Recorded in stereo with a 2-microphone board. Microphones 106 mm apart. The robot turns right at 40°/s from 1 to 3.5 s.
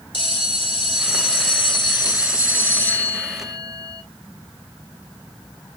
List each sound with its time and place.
0.1 s a bell: 85° left, 2 m; by 4.0 s 175° right, 2 m